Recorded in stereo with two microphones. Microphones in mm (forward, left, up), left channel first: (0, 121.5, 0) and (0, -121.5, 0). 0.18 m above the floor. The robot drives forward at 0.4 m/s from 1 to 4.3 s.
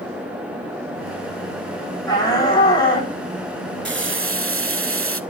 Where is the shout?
15° left (ahead or behind), 8 m.